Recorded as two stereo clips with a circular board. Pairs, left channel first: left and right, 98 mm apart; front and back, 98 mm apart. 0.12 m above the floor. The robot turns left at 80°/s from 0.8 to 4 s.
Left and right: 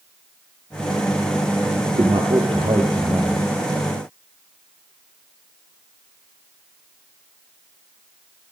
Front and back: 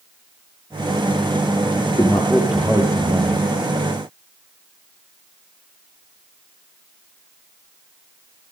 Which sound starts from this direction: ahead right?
A man speaking, at 1.9 s.